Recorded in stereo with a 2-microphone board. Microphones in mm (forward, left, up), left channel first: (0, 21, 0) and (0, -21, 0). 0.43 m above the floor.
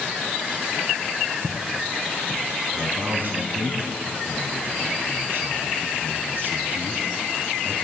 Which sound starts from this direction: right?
A man speaking, at 2.7 s.